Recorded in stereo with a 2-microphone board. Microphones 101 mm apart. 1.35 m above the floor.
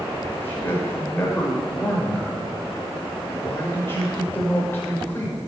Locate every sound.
0.3 s a man speaking: 25° left (ahead or behind), 6 m